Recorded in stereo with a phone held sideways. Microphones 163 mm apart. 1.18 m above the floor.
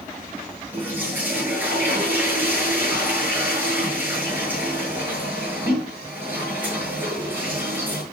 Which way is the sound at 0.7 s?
10° right (ahead or behind).